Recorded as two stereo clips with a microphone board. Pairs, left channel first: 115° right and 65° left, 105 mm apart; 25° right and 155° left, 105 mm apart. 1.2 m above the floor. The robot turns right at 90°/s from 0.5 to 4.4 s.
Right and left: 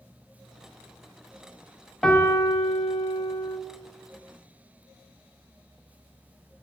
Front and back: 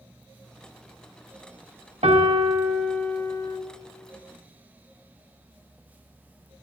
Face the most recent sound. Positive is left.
turn(degrees=15)